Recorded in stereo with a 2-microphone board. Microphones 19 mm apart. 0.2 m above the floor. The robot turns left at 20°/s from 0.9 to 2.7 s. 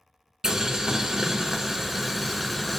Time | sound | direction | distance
0.4 | boiling | 145° right | 0.5 m